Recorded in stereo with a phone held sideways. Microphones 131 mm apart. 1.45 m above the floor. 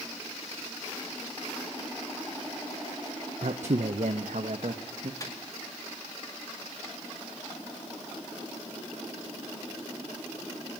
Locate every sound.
3.4 s a man speaking: 60° right (ahead or behind), 0.7 m; by 5.1 s 75° right (ahead or behind), 1.5 m
5.2 s a microwave: 25° left (ahead or behind), 2 m